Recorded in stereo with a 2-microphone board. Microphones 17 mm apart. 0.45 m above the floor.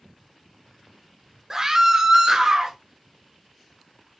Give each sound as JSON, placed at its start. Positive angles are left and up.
{"t": 1.5, "sound": "a scream", "side_deg": -25, "distance_m": 0.8}